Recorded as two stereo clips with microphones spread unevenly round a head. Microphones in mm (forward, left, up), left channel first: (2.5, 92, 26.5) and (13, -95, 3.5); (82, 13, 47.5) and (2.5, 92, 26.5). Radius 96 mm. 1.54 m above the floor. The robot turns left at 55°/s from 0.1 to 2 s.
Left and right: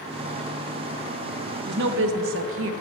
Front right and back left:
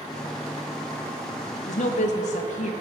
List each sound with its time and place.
1.7 s a woman speaking: 45° right, 0.9 m; by 2.7 s 60° right, 0.9 m